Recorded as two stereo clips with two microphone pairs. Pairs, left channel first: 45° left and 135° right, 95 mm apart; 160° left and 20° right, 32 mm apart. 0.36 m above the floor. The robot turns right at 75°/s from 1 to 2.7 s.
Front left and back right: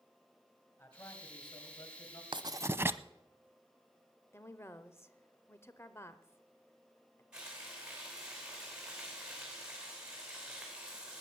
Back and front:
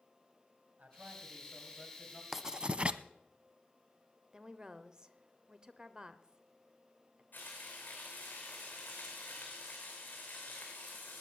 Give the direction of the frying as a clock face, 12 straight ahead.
7 o'clock.